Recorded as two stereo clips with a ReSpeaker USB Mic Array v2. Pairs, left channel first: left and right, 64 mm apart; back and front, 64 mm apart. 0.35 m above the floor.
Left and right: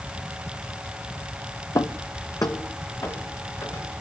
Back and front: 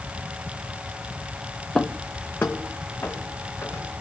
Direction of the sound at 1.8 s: 100° left.